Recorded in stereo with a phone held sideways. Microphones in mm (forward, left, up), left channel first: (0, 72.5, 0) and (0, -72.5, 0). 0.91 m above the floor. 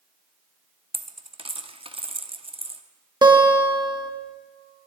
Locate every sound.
0.9 s a dropped coin: 40° right (ahead or behind), 0.6 m
3.2 s a guitar: 30° right (ahead or behind), 1.3 m